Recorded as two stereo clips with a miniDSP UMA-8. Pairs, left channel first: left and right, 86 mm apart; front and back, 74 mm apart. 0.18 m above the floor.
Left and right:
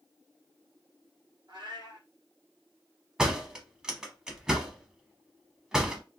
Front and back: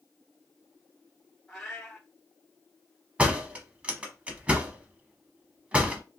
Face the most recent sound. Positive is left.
turn(degrees=-155)